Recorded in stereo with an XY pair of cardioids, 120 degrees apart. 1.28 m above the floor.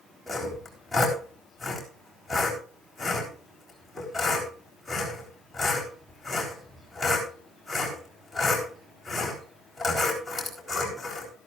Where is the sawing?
5° left, 4 m.